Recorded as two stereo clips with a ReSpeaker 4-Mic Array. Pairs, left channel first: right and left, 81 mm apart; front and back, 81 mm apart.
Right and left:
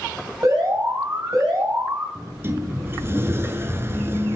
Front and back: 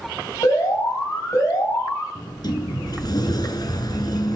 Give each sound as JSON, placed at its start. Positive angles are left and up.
{"t": 0.4, "sound": "an alarm", "azimuth_deg": 45, "distance_m": 3.5}
{"t": 2.1, "sound": "a sliding door", "azimuth_deg": 30, "distance_m": 1.1}